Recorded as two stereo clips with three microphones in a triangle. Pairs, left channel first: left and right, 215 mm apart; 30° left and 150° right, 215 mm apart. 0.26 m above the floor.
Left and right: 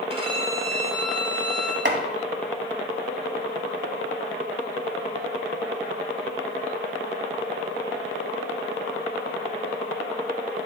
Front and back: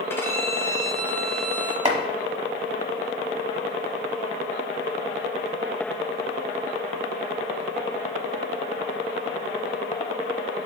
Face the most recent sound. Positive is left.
turn(degrees=-95)